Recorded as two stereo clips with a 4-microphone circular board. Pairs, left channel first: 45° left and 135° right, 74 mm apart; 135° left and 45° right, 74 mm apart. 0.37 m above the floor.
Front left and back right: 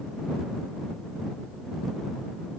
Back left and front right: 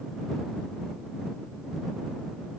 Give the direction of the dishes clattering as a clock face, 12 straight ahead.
I don't hear dishes clattering.